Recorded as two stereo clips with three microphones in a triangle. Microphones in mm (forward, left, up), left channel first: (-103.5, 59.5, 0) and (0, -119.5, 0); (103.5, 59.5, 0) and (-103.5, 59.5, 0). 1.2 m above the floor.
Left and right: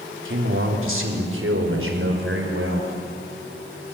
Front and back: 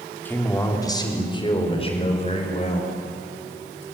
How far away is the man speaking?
About 3.5 m.